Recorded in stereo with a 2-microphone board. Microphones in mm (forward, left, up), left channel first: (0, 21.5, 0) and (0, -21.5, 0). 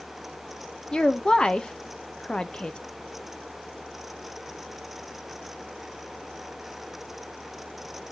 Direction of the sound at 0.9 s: 20° left (ahead or behind).